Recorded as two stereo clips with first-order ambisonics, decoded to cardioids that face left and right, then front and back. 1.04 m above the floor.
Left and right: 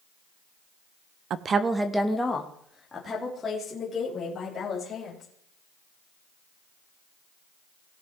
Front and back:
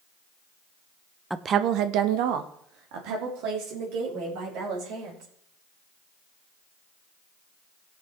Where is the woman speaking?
95° right, 0.5 m; by 5.3 s 165° left, 5 m.